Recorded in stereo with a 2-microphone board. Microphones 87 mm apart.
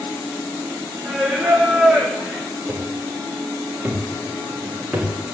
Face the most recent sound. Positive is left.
turn(degrees=-10)  # may be behind; listen again after turning